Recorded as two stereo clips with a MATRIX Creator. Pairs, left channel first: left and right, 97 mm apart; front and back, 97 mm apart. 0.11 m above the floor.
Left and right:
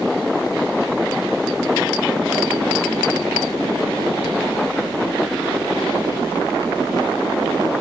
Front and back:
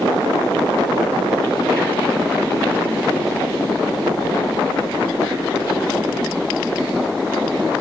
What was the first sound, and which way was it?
Only background noise.